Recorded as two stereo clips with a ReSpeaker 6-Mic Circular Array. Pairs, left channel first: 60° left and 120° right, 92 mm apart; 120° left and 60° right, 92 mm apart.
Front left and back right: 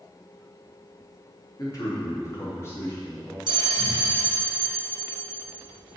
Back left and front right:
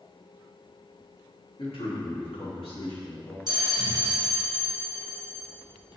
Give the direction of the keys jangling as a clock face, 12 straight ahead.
No keys jangling in this recording.